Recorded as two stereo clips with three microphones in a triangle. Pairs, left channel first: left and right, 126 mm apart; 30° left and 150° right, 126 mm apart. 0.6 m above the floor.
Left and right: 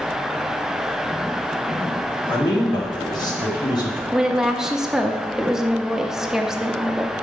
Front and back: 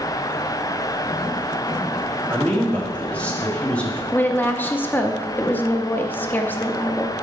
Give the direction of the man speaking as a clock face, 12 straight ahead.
9 o'clock.